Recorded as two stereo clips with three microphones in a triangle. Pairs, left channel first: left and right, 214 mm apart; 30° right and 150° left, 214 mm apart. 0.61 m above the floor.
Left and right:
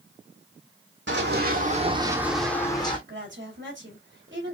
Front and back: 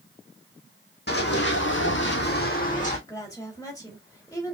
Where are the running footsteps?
65° right, 1.5 m; by 3.0 s 25° left, 1.6 m.